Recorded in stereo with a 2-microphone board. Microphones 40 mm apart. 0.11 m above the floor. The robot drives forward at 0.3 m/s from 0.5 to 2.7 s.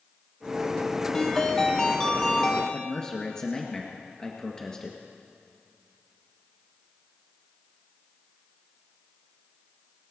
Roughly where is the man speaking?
Centre.